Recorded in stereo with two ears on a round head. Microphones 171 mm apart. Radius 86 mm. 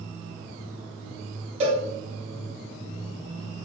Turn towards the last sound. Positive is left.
turn(degrees=-40)  # may be behind; listen again after turning